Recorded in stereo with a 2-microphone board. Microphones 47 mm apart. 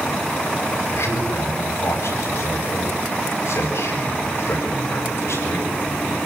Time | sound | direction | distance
0.9 | a man speaking | 65° left (ahead or behind) | 8.5 m